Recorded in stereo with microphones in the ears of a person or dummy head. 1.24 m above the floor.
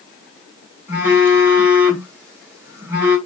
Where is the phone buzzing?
15° right (ahead or behind), 2.5 m.